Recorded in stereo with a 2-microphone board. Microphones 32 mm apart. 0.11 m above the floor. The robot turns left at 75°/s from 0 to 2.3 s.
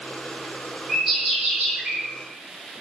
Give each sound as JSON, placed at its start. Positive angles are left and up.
{"t": 0.9, "sound": "a bird", "azimuth_deg": -10, "distance_m": 1.1}